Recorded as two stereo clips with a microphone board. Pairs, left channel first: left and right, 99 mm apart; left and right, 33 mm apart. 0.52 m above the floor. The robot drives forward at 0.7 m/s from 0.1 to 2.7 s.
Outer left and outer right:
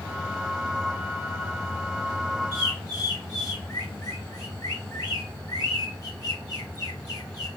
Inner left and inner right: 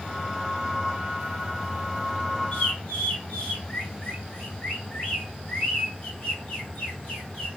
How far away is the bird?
About 2.5 m.